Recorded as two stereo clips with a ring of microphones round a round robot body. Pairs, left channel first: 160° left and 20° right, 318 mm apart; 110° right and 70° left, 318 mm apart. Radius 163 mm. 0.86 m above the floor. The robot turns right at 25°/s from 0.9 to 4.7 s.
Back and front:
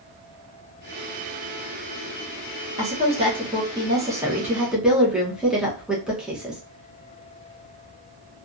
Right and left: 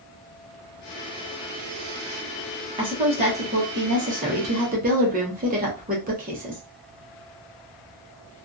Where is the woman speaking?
15° left, 0.9 m; by 6.6 s 60° left, 0.9 m.